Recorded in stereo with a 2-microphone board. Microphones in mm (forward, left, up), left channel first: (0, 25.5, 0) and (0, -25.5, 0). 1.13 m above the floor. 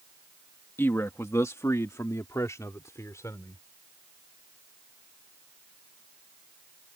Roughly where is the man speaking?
Left.